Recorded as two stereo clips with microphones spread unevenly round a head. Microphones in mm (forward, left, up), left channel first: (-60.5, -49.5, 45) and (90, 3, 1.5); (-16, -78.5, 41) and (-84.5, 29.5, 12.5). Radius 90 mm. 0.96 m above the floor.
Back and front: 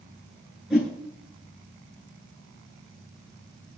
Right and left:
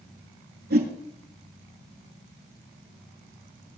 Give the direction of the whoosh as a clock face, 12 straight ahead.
8 o'clock.